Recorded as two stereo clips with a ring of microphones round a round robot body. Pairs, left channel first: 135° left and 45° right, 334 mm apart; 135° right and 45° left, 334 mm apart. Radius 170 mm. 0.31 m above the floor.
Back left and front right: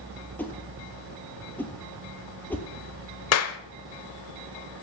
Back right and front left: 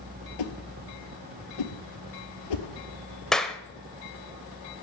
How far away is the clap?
About 0.9 m.